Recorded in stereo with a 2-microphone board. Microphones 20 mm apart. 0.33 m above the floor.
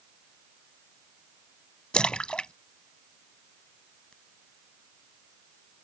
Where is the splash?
55° left (ahead or behind).